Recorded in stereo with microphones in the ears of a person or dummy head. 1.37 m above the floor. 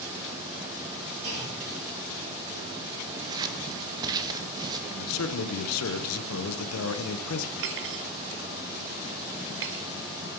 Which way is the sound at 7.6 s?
60° right (ahead or behind).